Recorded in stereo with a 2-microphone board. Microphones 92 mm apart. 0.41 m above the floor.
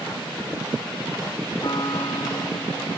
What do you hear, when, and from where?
1.6 s a piano: 45° left (ahead or behind)